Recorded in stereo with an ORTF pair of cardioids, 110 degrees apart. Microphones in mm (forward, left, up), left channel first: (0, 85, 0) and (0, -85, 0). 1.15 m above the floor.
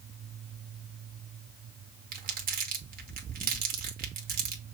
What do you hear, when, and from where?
2.1 s crumpling: 60° right, 1.5 m